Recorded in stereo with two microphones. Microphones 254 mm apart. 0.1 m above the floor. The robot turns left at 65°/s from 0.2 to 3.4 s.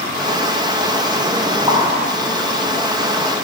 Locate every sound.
1.7 s a pop: 15° right (ahead or behind), 2.5 m; by 3.4 s 50° right (ahead or behind), 2.5 m